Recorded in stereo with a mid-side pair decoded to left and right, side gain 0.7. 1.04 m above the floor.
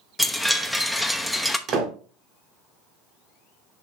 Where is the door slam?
45° right, 2 m.